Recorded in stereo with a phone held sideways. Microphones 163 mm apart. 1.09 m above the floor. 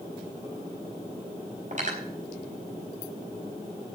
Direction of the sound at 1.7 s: 50° right (ahead or behind).